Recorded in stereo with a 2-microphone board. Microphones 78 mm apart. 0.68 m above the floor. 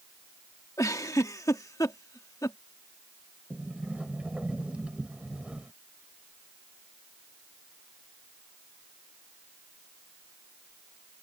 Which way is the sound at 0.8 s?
45° left (ahead or behind).